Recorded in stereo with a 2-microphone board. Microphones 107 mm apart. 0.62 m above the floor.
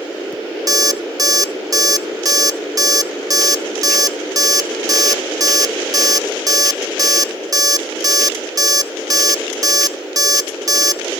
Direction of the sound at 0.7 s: 35° right (ahead or behind).